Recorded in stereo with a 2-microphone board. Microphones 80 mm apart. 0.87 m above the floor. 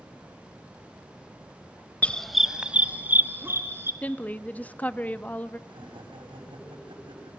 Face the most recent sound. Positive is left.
turn(degrees=-80)